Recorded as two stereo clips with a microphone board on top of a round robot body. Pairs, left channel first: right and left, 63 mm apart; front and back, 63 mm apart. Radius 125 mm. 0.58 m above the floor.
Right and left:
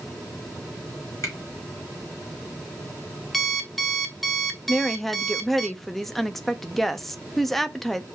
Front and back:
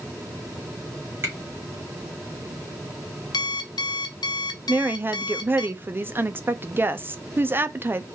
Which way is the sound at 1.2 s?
130° right.